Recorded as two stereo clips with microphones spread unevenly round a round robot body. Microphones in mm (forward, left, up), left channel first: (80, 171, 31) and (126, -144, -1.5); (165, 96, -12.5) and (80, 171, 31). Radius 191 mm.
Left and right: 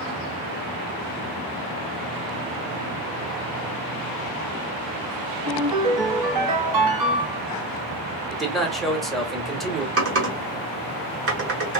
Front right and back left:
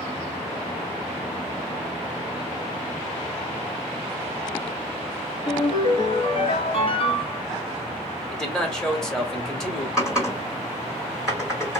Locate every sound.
5.5 s a ringtone: 80° right, 1.6 m
8.3 s a man speaking: straight ahead, 1.1 m
10.0 s typing on a keyboard: 115° right, 1.1 m